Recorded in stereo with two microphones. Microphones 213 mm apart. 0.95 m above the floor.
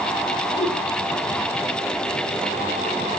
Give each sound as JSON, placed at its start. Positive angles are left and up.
{"t": 0.6, "sound": "a whoosh", "side_deg": 15, "distance_m": 4.5}